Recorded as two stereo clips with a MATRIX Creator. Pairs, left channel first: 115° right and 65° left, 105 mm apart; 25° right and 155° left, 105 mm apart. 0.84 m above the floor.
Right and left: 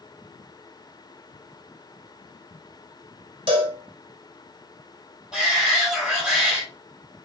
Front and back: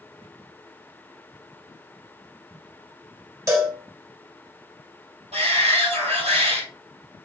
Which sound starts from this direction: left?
A cowbell, at 3.5 s.